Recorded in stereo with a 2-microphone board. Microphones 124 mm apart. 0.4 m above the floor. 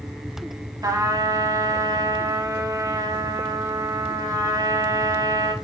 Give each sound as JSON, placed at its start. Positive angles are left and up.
{"t": 0.8, "sound": "a trumpet", "side_deg": -30, "distance_m": 0.6}